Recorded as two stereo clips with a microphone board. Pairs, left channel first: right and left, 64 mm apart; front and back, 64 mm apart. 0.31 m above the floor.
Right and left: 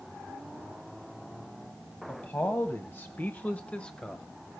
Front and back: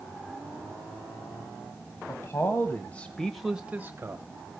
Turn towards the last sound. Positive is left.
turn(degrees=-170)